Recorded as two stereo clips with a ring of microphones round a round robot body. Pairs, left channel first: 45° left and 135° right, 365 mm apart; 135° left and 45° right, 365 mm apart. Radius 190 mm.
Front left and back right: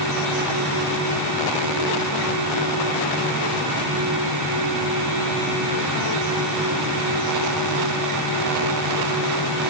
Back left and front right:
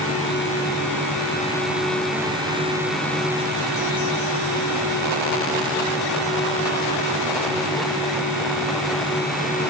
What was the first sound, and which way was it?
Only background noise.